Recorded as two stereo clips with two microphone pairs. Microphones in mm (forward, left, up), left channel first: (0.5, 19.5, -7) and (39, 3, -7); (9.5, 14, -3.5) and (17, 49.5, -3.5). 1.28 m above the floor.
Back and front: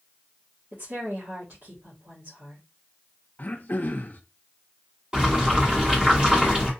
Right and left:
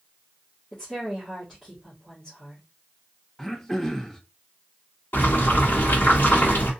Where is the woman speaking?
25° right, 1.8 m.